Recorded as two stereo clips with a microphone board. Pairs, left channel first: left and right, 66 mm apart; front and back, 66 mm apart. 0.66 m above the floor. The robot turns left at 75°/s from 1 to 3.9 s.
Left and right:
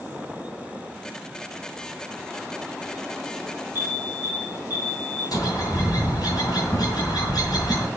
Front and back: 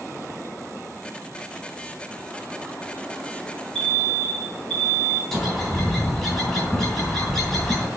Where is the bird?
85° left, 3 m.